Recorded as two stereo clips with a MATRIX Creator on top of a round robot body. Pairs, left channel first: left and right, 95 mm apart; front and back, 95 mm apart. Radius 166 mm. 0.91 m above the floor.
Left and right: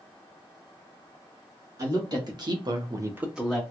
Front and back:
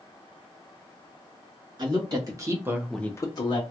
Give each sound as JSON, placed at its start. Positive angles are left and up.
{"t": 1.8, "sound": "a woman speaking", "azimuth_deg": -135, "distance_m": 2.0}